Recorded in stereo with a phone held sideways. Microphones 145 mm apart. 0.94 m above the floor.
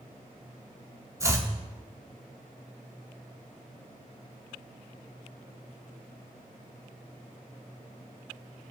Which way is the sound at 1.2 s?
20° right (ahead or behind).